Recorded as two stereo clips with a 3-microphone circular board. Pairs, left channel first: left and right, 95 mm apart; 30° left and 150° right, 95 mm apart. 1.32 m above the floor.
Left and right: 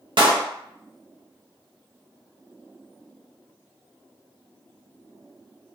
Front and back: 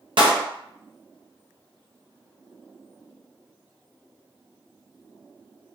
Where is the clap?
120° right, 0.7 m.